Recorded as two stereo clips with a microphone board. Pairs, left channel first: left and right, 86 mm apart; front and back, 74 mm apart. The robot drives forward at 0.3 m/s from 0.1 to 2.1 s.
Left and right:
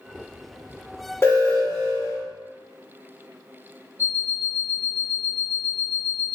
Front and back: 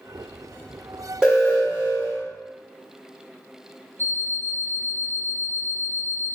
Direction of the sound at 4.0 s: 135° left.